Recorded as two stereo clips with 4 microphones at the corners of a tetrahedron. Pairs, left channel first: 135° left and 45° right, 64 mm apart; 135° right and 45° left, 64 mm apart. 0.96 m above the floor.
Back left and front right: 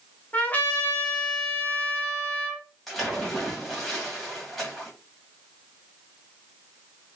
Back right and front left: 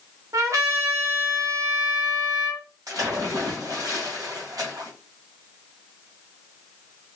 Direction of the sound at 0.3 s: 70° left.